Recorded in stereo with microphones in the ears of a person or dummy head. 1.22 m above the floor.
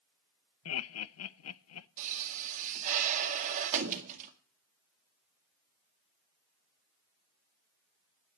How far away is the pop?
About 1.8 m.